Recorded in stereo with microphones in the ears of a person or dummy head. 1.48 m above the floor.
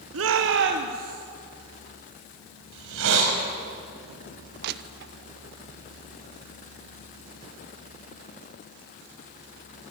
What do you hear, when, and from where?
0.1 s a shout: 75° right (ahead or behind), 1.3 m; by 1.2 s 45° right (ahead or behind), 1.7 m
2.7 s a hiss: 75° right (ahead or behind), 5 m
4.6 s crushing: 60° right (ahead or behind), 0.9 m